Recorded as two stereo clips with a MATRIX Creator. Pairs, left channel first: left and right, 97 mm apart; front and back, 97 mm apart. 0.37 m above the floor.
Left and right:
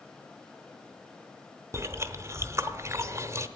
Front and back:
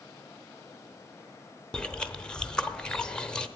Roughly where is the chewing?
Right.